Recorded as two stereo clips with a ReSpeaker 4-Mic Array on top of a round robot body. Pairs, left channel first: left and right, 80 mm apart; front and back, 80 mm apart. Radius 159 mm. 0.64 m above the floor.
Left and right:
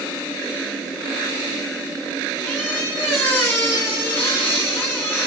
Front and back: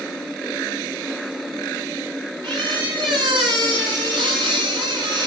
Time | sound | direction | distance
2.4 | a squeak | 155° left | 3.5 m